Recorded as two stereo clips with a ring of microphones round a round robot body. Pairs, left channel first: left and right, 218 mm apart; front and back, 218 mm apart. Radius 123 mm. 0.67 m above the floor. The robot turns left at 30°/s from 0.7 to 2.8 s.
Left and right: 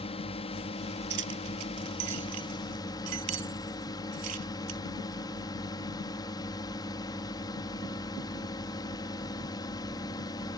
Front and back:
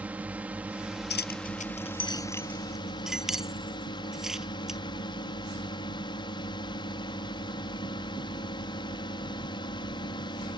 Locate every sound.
0.0 s a drone: 105° left; by 10.6 s 40° left
1.1 s keys jangling: 40° right; by 4.8 s 90° right